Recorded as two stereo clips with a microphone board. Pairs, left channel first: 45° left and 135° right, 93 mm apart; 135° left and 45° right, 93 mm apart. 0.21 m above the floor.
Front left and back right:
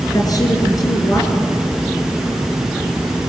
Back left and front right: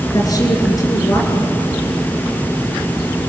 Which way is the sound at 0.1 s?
90° left.